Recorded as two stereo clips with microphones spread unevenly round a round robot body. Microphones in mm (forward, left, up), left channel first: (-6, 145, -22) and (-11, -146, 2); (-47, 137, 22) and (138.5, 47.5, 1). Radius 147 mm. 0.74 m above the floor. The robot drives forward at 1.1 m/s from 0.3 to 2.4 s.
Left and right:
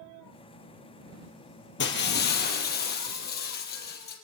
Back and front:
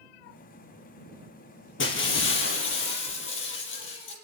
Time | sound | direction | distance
1.8 | breaking glass | 140° left | 4 m